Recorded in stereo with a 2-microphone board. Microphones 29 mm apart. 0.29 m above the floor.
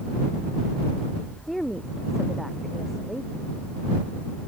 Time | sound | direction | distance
1.5 | a woman speaking | centre (ahead or behind) | ?